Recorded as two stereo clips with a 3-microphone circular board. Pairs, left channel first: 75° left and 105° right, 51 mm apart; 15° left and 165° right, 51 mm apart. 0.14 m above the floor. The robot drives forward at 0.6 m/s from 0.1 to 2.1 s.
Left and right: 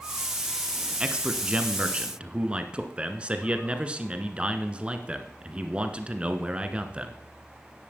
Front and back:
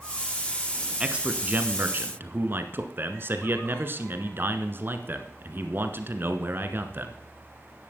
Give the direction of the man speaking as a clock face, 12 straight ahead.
4 o'clock.